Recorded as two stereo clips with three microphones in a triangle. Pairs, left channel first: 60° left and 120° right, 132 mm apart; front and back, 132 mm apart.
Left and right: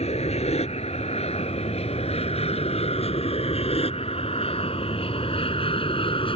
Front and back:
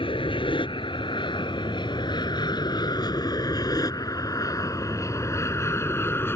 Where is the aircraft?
40° left; by 6.4 s 65° left.